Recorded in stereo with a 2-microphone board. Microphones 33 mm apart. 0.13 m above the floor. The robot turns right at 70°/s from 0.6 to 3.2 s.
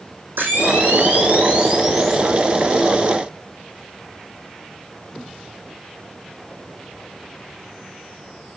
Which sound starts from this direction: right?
A camera shutter, at 0.4 s.